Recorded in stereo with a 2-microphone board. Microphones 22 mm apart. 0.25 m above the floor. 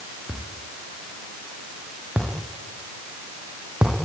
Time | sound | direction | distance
0.3 | a thud | 80° right | 7 m